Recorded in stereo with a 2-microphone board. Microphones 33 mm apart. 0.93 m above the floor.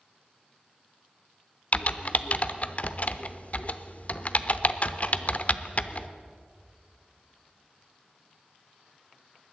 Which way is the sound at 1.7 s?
45° left (ahead or behind).